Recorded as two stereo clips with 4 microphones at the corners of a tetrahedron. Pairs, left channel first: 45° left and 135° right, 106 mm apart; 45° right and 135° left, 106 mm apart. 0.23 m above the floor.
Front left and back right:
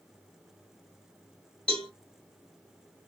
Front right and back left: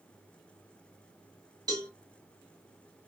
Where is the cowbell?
115° left, 1.9 m.